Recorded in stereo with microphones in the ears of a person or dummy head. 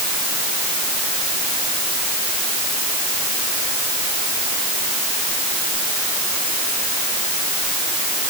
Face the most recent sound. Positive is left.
No sound to turn to.